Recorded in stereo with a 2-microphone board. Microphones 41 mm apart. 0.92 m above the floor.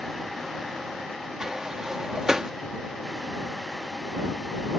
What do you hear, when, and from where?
1.4 s a sliding door: 15° right (ahead or behind)